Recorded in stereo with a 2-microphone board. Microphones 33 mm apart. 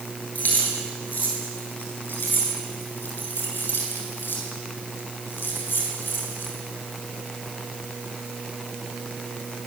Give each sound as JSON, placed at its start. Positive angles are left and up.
{"t": 0.3, "sound": "keys jangling", "side_deg": 55, "distance_m": 9.5}